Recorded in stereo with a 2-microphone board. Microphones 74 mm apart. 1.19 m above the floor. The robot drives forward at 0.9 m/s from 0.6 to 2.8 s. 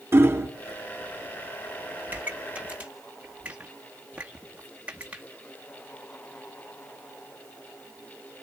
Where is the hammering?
30° right (ahead or behind), 2.5 m.